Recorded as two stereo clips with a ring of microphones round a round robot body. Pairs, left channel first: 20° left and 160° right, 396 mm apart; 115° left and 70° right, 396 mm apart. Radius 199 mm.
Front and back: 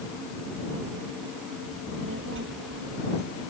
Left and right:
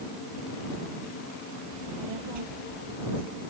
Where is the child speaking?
100° right; by 3.4 s 90° right.